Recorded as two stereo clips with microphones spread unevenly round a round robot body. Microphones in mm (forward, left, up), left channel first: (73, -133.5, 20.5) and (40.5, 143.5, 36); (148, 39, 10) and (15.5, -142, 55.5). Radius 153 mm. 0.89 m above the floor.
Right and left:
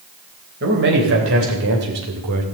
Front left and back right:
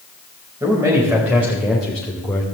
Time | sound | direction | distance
0.6 | a man speaking | 155° left | 3.5 m